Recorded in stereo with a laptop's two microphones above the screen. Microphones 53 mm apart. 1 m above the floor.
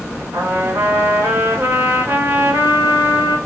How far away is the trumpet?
About 1.8 m.